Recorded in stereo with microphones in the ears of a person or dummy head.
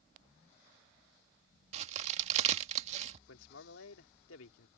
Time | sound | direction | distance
1.7 | a crack | 45° right (ahead or behind) | ?
3.3 | a man speaking | 90° left | ?